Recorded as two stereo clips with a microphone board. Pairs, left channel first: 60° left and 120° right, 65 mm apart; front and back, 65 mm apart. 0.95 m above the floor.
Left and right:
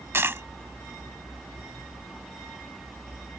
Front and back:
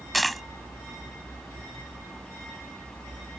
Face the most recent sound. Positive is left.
turn(degrees=-90)